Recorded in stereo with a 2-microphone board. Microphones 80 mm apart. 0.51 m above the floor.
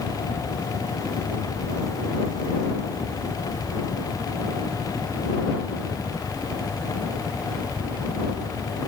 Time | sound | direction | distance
0.0 | a helicopter | 40° left (ahead or behind) | ?